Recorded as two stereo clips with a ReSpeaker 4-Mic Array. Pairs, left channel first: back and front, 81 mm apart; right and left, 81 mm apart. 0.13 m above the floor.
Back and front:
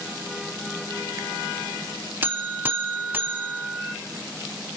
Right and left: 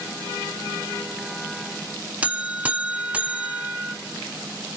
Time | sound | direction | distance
2.2 | a buzzer | 35° left | 0.6 m